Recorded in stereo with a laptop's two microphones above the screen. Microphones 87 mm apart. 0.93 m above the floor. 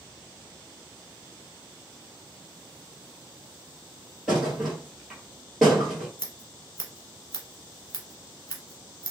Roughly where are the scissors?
Left.